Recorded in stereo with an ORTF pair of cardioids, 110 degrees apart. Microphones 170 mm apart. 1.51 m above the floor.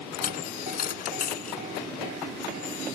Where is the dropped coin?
55° left.